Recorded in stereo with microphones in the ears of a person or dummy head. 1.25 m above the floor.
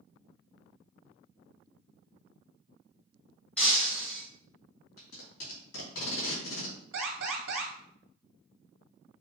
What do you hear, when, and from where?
3.6 s breaking glass: 5° left (ahead or behind), 1.4 m
5.0 s tape being pulled: 75° left (ahead or behind), 2.5 m
6.9 s an alarm: 75° right (ahead or behind), 1.9 m